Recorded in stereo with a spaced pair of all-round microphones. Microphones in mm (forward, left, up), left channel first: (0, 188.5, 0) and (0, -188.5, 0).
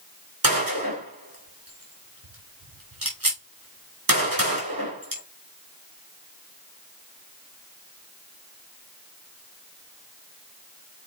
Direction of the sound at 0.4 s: 65° right (ahead or behind).